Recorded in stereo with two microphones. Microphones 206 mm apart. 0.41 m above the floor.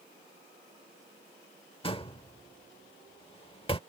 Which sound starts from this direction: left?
A door slam, at 1.8 s.